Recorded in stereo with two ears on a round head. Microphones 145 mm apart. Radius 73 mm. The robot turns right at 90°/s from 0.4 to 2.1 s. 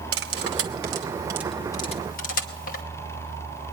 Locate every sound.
0.1 s cutlery clinking: 80° right, 1.0 m; by 2.8 s 50° left (ahead or behind), 1.0 m